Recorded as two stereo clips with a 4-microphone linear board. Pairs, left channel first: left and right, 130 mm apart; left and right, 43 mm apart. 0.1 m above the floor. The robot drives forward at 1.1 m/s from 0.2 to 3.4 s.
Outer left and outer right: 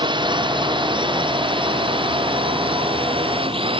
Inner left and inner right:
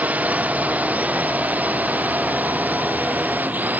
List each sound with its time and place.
0.0 s a drone: 35° right (ahead or behind); by 3.8 s 40° right (ahead or behind)